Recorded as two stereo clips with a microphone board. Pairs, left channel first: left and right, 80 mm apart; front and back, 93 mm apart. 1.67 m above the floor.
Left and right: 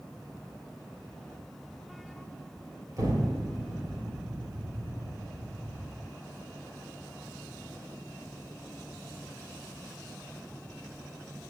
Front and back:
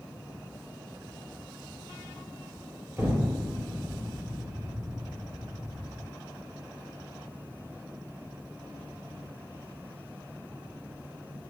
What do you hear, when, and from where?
3.0 s an explosion: 125° right, 3 m